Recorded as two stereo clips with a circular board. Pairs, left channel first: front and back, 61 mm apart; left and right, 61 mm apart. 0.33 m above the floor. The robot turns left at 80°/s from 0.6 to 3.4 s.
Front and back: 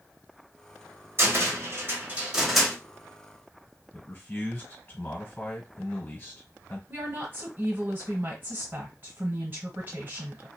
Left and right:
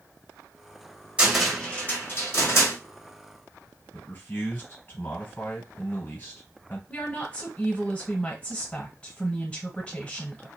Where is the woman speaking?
150° left, 1.3 m.